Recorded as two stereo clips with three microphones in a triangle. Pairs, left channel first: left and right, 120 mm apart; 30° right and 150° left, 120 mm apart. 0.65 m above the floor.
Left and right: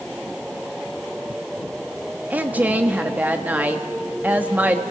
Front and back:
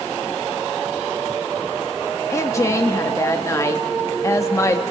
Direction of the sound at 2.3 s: 35° right.